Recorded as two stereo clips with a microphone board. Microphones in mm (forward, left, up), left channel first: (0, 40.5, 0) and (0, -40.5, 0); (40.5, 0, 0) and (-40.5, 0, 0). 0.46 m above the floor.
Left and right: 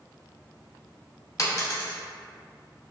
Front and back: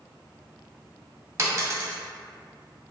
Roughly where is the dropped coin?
Behind left.